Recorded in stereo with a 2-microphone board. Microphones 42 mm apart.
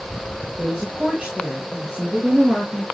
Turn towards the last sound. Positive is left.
turn(degrees=-30)  # may be behind; listen again after turning